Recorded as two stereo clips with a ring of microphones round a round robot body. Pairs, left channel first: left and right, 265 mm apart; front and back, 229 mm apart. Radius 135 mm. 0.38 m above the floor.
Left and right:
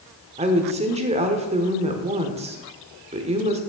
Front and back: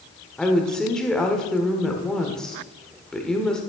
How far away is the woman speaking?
About 1.3 m.